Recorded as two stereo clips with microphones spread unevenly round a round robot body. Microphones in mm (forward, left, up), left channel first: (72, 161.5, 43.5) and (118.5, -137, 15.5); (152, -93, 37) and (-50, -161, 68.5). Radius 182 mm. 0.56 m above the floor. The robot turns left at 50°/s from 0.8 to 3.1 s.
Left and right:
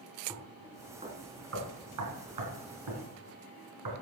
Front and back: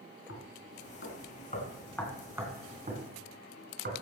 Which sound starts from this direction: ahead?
Knocking, at 0.3 s.